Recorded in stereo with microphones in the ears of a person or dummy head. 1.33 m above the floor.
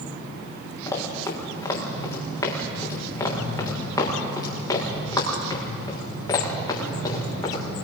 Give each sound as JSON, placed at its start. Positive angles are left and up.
{"t": 0.9, "sound": "running footsteps", "side_deg": 20, "distance_m": 6.0}